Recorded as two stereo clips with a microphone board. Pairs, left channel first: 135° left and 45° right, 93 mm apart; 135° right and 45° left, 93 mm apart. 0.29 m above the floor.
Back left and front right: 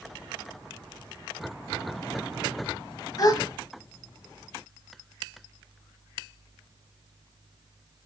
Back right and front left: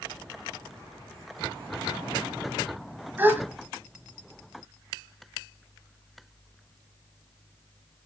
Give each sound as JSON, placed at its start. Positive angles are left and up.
{"t": 3.2, "sound": "a gasp", "azimuth_deg": 110, "distance_m": 1.2}